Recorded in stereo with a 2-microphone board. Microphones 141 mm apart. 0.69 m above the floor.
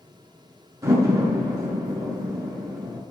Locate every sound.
0.8 s a door slam: 20° right (ahead or behind), 7.5 m